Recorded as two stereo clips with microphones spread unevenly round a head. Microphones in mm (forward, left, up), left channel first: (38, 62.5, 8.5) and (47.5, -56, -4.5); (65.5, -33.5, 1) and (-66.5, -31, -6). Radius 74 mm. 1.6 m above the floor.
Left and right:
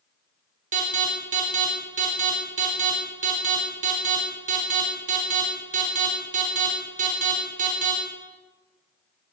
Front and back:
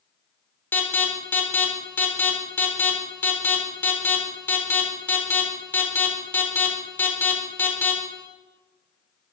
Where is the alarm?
75° right, 4 m.